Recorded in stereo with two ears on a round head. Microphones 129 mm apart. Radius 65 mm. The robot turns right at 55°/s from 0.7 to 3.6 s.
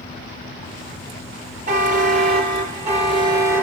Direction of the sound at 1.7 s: 125° right.